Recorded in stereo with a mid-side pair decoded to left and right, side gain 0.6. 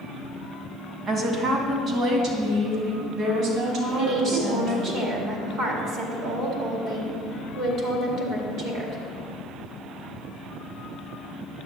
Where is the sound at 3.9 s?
60° right, 2.5 m.